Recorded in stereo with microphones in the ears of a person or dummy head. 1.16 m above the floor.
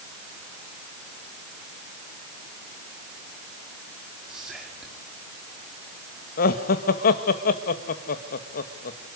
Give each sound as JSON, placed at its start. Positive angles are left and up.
{"t": 4.3, "sound": "whispering", "side_deg": 0, "distance_m": 3.0}
{"t": 6.4, "sound": "laughter", "side_deg": 50, "distance_m": 1.6}